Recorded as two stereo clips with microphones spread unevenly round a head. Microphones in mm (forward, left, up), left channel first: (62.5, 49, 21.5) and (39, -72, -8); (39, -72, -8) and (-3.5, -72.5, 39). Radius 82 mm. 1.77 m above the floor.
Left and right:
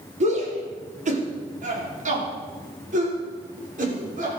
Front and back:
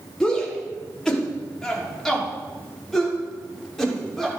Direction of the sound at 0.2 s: 75° right.